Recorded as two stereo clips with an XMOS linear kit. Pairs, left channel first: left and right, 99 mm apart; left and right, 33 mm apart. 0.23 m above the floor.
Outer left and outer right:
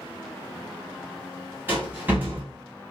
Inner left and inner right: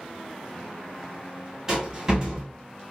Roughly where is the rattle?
Centre.